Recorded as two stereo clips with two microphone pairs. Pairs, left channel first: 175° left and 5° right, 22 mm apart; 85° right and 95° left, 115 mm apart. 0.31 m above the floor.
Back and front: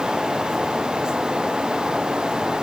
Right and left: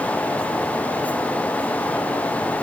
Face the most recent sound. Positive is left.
No sound to turn to.